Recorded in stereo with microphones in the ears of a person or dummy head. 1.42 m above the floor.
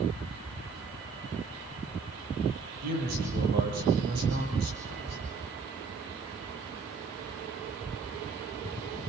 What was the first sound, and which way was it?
A man speaking, 55° right (ahead or behind).